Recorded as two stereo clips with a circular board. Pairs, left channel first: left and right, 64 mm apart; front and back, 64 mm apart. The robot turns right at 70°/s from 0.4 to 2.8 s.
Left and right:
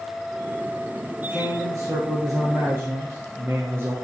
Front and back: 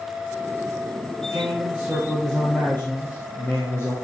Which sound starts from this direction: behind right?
A man speaking, at 1.3 s.